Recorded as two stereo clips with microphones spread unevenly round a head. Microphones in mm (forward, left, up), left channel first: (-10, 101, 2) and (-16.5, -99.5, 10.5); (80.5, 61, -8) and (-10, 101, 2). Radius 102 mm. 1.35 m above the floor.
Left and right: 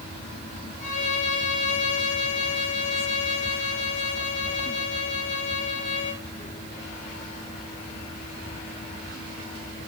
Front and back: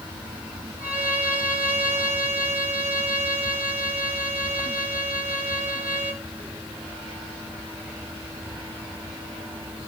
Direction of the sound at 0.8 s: 145° left.